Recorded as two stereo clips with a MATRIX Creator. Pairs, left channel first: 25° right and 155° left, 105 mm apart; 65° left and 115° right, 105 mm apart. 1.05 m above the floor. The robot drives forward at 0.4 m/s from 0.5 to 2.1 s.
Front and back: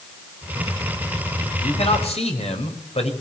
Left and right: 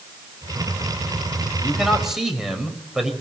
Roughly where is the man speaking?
Ahead right.